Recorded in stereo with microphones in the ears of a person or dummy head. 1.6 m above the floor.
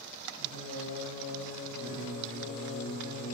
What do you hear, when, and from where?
0.4 s singing: 60° left (ahead or behind), 2 m